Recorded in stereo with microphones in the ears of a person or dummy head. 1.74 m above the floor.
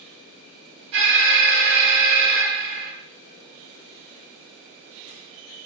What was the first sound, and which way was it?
An alarm, 65° right (ahead or behind).